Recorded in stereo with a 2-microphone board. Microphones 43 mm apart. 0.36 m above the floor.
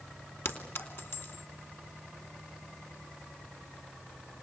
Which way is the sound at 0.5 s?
65° left (ahead or behind).